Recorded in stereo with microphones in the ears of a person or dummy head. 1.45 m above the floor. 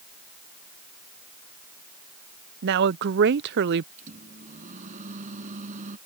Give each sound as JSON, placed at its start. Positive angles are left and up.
{"t": 2.6, "sound": "a woman speaking", "side_deg": -55}
{"t": 4.0, "sound": "a microwave", "side_deg": -40}